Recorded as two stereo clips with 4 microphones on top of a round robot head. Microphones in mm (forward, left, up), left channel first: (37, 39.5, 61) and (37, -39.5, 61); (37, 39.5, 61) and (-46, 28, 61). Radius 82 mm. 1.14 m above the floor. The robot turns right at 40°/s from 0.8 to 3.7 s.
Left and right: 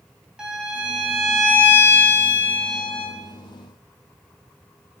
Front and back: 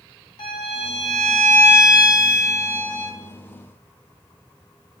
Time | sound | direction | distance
0.4 | a violin | 10° right | 3 m